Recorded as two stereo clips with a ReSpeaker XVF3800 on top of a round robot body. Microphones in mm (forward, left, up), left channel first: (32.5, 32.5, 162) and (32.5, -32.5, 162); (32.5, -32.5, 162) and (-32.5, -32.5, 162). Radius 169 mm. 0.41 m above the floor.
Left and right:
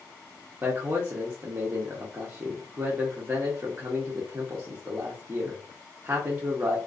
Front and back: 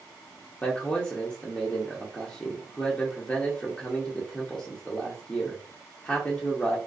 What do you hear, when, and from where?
0.6 s a man speaking: 60° right, 1.1 m